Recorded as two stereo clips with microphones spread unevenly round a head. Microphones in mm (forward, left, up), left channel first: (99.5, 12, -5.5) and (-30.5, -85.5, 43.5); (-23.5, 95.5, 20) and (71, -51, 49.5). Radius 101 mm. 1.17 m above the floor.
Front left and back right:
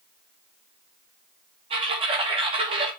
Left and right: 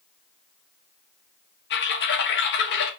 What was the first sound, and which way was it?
Typing on a keyboard, 150° left.